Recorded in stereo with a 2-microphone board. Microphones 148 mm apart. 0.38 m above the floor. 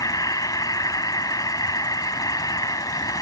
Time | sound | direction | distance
0.0 | an insect | 25° left (ahead or behind) | ?